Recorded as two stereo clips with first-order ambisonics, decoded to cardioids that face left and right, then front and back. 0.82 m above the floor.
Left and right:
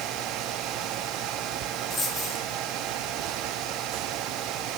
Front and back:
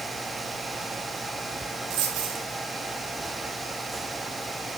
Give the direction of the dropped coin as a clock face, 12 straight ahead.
6 o'clock.